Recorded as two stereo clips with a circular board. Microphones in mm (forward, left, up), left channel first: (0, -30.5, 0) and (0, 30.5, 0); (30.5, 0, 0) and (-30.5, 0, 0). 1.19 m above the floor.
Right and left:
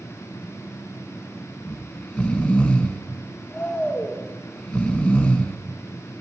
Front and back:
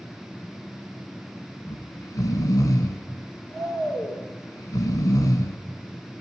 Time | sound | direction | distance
1.7 | snoring | 15° right | 1.7 m